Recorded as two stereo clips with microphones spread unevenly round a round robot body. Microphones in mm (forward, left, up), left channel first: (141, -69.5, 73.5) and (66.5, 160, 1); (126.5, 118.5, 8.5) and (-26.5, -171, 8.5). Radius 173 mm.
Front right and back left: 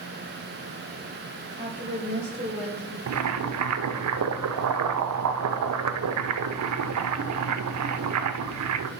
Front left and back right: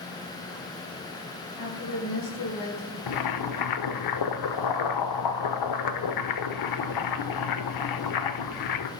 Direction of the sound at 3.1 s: 90° left.